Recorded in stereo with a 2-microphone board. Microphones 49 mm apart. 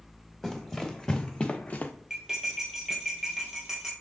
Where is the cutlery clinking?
5° right (ahead or behind), 1.6 m.